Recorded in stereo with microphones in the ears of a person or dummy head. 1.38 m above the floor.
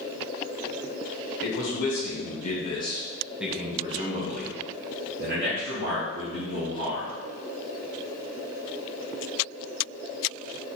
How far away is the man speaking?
About 1.3 m.